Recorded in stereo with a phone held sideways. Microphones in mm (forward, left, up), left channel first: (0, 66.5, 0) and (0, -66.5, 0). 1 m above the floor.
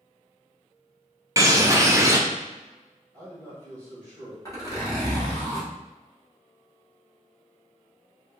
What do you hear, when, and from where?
1.4 s a bird: 20° right (ahead or behind), 0.5 m
3.1 s a man speaking: 10° left (ahead or behind), 1.7 m
4.5 s a zipper: 25° left (ahead or behind), 1.3 m